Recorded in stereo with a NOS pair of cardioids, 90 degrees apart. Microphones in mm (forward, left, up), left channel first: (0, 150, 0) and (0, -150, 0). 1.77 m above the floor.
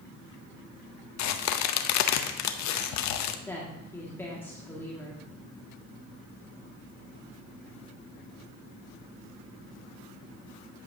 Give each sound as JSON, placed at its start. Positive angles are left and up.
{"t": 1.2, "sound": "a crack", "azimuth_deg": 70, "distance_m": 0.7}
{"t": 3.5, "sound": "a woman speaking", "azimuth_deg": 10, "distance_m": 1.8}